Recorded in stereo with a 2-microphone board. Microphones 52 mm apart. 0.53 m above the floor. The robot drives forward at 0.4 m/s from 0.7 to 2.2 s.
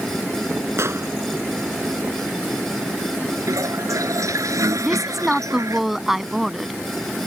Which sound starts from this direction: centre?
A woman speaking, at 4.8 s.